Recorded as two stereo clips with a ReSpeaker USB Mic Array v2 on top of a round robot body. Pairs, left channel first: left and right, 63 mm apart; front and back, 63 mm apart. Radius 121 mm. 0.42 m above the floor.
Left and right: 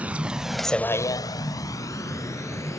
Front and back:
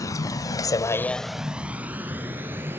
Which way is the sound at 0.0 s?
25° right.